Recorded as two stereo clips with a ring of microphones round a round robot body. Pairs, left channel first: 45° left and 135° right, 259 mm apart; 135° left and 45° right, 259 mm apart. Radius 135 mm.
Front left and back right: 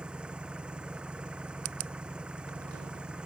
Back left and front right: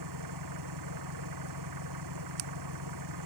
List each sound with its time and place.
0.0 s an engine running: 50° right